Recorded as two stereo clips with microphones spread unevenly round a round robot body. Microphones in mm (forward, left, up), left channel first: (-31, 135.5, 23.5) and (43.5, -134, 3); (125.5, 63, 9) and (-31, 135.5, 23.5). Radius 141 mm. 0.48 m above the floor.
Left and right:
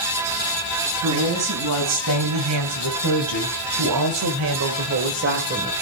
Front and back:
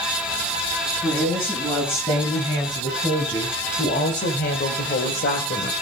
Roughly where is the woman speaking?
Right.